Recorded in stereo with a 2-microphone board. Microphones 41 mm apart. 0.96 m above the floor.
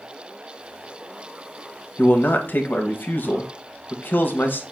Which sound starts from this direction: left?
A man speaking, at 2.0 s.